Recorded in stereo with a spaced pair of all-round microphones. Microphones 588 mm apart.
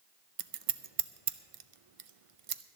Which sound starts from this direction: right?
Scissors, at 0.4 s.